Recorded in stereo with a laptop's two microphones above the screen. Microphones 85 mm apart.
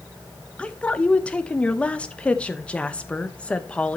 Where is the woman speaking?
10° left (ahead or behind), 0.7 m.